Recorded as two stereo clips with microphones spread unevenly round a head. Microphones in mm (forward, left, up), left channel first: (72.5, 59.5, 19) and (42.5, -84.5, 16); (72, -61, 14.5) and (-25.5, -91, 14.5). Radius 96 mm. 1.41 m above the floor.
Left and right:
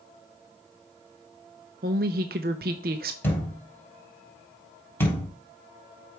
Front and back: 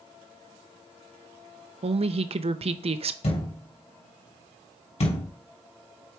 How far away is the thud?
About 3 m.